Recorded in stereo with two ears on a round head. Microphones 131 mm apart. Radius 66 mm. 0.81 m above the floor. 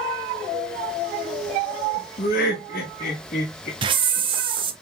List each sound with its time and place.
2.2 s laughter: 70° left (ahead or behind), 1.3 m; by 3.7 s 65° left (ahead or behind), 2 m
3.8 s a hiss: 35° right (ahead or behind), 0.5 m